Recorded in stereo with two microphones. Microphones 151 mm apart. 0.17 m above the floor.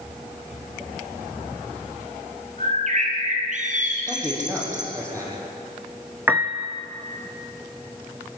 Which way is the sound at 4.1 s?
20° right (ahead or behind).